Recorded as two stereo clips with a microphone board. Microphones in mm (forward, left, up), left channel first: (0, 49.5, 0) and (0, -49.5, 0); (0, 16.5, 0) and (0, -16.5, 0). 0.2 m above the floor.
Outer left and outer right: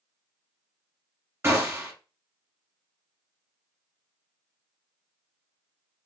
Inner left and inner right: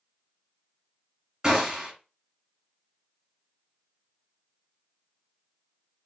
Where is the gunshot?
20° right (ahead or behind), 1.1 m.